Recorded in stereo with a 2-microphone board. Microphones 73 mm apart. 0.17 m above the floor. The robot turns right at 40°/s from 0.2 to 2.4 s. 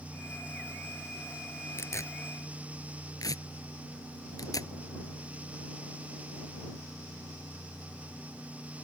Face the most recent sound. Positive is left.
turn(degrees=60)  # may be behind; listen again after turning